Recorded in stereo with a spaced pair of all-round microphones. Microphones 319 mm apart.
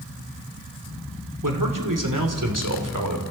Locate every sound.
1.4 s a man speaking: 85° right, 3 m; by 3.2 s 75° right (ahead or behind), 3.5 m